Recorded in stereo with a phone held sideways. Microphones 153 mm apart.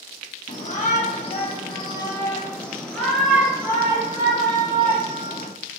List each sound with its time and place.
0.5 s a shout: 55° left (ahead or behind), 1.5 m; by 5.5 s 40° right (ahead or behind), 2 m